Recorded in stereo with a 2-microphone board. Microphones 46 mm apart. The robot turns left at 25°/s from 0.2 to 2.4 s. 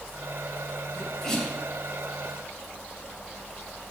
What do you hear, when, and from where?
0.9 s a sneeze: 15° left (ahead or behind), 4 m; by 1.6 s centre (ahead or behind), 4 m